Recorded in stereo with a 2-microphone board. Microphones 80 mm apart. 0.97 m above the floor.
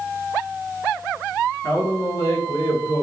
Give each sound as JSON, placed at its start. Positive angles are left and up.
{"t": 1.6, "sound": "a man speaking", "side_deg": 55, "distance_m": 1.3}